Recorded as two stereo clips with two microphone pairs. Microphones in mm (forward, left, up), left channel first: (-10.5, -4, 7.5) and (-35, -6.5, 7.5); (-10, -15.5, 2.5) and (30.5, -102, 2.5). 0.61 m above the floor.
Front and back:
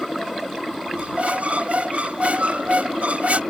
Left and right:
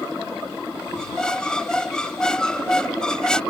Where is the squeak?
160° right.